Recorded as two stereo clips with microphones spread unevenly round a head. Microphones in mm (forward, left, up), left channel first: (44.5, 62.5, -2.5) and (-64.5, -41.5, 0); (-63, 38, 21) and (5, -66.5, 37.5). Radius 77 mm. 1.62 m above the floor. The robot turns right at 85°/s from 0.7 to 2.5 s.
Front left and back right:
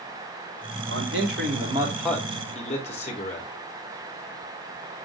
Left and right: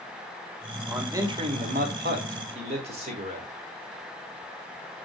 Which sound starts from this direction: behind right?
A man speaking, at 0.9 s.